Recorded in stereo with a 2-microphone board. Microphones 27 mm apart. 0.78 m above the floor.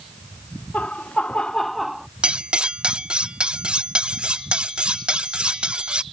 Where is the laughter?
60° left (ahead or behind); by 2.1 s 15° right (ahead or behind).